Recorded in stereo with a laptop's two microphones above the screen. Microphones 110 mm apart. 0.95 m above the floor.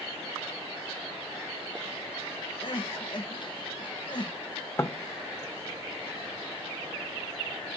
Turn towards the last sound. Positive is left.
turn(degrees=25)  # may be behind; listen again after turning